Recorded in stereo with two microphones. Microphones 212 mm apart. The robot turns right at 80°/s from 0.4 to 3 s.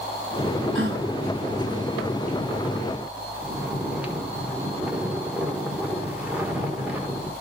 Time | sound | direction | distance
0.8 | a gasp | 70° right (ahead or behind) | 1.2 m
3.4 | snoring | 5° right (ahead or behind) | 1.3 m